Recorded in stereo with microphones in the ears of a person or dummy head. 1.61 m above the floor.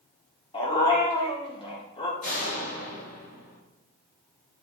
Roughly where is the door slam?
Left.